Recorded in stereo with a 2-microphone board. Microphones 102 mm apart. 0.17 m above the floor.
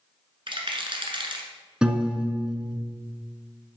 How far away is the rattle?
About 1.4 m.